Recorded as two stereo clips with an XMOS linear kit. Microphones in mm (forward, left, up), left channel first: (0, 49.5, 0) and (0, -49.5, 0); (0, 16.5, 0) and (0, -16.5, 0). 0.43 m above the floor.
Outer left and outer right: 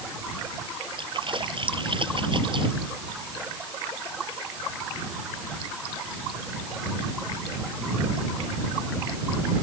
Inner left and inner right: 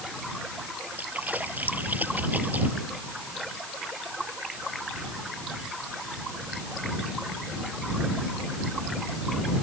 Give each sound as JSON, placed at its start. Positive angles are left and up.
{"t": 1.0, "sound": "a splash", "side_deg": -60}